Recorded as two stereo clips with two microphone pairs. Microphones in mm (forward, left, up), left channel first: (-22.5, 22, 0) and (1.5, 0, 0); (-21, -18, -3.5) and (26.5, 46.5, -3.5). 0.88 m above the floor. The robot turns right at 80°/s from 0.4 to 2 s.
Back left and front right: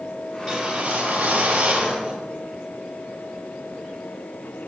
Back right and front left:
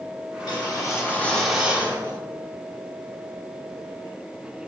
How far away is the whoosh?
About 2.5 m.